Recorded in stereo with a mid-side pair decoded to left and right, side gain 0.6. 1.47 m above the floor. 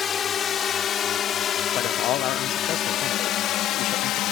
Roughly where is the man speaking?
Ahead left.